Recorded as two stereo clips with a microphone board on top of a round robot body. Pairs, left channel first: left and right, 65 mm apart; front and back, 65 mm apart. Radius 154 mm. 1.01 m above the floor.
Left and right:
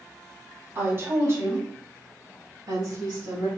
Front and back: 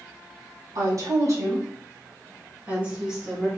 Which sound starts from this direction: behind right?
A woman speaking, at 0.8 s.